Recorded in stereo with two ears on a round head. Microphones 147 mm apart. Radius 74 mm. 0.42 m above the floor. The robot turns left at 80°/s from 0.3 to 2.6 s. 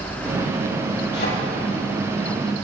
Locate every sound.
1.1 s a thud: 75° left (ahead or behind), 6 m; by 1.3 s 60° left (ahead or behind), 6 m